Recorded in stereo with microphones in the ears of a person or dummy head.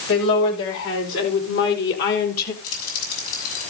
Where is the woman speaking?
75° left (ahead or behind), 5.5 m; by 2.5 s 50° left (ahead or behind), 2.5 m.